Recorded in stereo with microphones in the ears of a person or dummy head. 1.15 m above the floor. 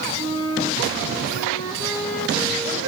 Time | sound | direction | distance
0.2 | a flute | 20° right (ahead or behind) | 10 m